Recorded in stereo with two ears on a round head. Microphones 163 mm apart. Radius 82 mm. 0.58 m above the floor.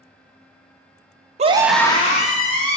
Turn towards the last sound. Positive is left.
turn(degrees=55)  # may be behind; listen again after turning